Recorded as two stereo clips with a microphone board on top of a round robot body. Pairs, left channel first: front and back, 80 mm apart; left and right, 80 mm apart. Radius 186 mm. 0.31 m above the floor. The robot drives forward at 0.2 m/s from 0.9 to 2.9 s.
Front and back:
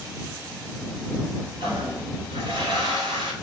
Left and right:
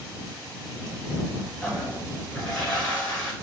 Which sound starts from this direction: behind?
A toilet flushing, at 1.6 s.